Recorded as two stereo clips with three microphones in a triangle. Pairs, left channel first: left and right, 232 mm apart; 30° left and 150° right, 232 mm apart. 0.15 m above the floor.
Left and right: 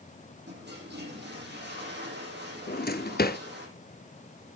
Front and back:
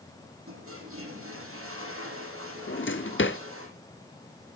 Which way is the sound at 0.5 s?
130° right.